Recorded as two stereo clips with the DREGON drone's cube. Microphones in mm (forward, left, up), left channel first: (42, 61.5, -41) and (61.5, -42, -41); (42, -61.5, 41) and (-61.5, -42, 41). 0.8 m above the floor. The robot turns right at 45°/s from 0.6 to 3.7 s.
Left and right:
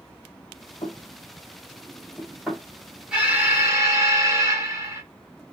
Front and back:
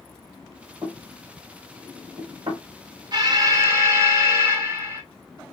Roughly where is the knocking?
Behind left.